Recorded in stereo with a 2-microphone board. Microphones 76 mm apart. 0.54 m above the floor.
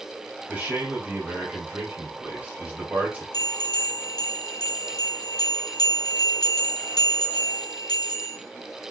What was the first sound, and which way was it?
A man speaking, 20° right (ahead or behind).